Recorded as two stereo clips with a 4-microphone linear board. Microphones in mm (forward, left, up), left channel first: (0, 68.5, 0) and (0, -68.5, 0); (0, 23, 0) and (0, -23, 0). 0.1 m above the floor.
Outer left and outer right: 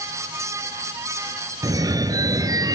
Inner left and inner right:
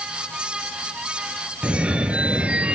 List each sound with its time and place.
1.6 s a phone ringing: 30° right (ahead or behind), 1.0 m